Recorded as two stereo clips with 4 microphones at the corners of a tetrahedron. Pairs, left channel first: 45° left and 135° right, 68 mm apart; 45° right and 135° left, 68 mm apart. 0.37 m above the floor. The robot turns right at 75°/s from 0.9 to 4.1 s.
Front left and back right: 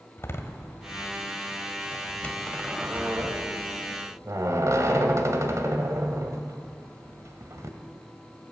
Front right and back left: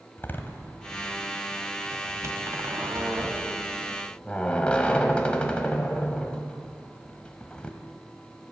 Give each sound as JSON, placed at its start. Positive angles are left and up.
{"t": 0.2, "sound": "a door slam", "azimuth_deg": 5, "distance_m": 1.4}